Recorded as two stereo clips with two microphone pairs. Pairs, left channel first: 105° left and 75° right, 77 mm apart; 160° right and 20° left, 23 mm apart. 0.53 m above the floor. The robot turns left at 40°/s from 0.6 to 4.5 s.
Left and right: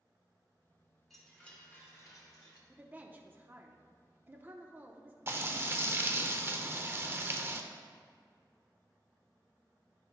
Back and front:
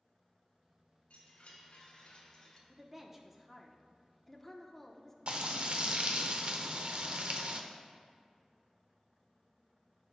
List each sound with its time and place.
1.1 s a chime: 165° right, 1.7 m; by 2.6 s 135° left, 1.7 m
2.7 s a woman speaking: 25° right, 0.8 m; by 5.2 s 95° right, 0.8 m
5.3 s frying: 15° right, 0.6 m